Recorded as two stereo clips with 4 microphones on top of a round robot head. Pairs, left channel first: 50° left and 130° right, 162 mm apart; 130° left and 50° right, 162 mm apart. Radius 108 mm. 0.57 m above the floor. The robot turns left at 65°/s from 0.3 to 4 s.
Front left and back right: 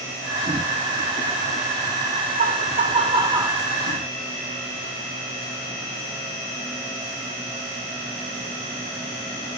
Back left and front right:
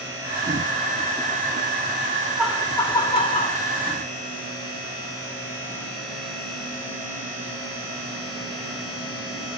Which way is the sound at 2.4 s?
130° right.